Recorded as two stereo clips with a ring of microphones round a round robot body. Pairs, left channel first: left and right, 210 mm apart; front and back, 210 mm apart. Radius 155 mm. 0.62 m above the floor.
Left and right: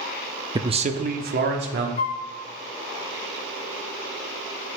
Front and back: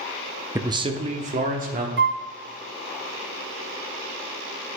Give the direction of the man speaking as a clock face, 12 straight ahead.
4 o'clock.